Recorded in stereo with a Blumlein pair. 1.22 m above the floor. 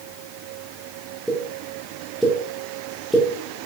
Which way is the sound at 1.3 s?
5° right.